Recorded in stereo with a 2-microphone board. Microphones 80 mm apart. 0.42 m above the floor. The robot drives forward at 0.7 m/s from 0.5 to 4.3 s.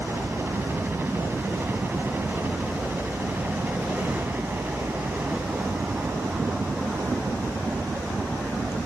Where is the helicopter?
30° right (ahead or behind); by 8.9 s 20° right (ahead or behind).